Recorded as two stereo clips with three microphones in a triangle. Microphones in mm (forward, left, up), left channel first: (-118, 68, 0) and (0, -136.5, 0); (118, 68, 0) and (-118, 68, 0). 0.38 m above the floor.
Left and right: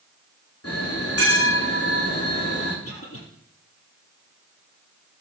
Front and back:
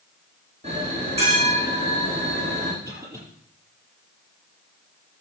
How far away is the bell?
About 5 m.